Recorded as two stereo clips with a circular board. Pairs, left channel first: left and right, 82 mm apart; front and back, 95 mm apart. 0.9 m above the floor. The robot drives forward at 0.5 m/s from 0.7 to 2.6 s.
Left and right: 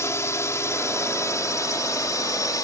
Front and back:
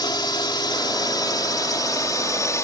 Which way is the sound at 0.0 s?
40° left.